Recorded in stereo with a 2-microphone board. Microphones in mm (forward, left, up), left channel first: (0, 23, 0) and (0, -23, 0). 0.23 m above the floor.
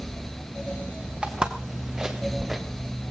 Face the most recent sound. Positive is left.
turn(degrees=-10)  # may be behind; listen again after turning